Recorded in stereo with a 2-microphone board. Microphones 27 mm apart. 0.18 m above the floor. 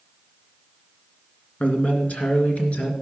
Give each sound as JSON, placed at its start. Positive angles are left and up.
{"t": 1.6, "sound": "a man speaking", "side_deg": 55, "distance_m": 2.0}